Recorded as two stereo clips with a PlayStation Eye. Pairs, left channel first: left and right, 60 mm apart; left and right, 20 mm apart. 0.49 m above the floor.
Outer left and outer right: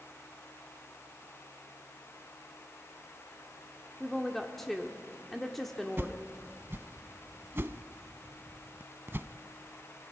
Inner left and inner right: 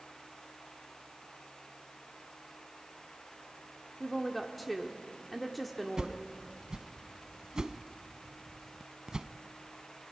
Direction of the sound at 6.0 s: 40° right (ahead or behind).